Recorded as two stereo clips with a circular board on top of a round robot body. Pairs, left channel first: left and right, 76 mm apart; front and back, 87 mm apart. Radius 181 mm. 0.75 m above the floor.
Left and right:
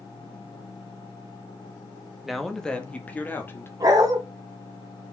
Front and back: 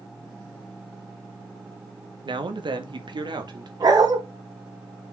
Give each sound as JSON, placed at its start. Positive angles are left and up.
{"t": 2.2, "sound": "a man speaking", "azimuth_deg": 180, "distance_m": 1.9}
{"t": 3.8, "sound": "a dog barking", "azimuth_deg": -135, "distance_m": 2.5}